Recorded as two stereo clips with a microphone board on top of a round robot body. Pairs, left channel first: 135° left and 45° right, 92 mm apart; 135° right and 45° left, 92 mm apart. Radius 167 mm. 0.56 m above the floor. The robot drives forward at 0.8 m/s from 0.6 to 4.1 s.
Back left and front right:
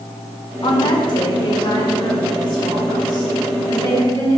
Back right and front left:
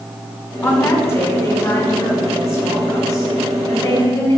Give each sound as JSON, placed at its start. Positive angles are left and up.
{"t": 0.6, "sound": "a woman speaking", "azimuth_deg": 165, "distance_m": 2.0}